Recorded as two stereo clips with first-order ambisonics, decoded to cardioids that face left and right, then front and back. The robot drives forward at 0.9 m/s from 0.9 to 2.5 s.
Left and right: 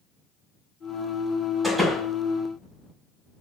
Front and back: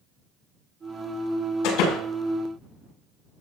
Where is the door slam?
10° right, 5 m.